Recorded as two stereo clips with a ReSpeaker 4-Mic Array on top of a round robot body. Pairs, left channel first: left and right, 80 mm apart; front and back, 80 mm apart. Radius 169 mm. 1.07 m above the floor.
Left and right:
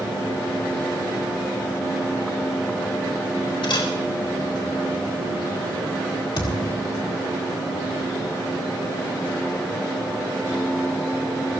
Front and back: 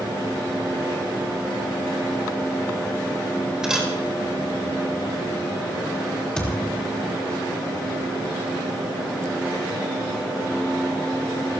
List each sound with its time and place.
3.6 s a camera shutter: 100° left, 4 m
6.4 s a thud: 80° left, 3 m